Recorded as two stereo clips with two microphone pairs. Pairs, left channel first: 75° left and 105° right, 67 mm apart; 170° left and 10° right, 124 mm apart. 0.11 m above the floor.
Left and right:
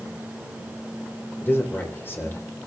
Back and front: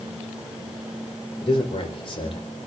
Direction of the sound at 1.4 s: 130° left.